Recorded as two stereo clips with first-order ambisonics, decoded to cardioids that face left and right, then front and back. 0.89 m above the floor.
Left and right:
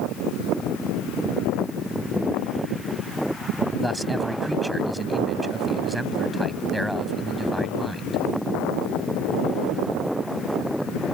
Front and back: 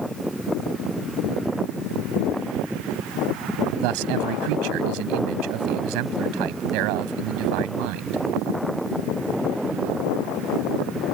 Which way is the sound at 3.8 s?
Straight behind.